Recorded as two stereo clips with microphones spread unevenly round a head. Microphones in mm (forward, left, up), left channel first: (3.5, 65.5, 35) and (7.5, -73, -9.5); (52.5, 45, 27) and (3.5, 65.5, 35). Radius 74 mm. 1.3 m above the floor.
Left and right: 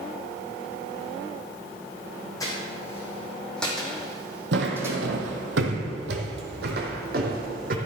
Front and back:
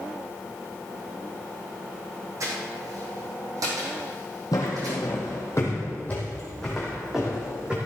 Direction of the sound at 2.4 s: 155° left.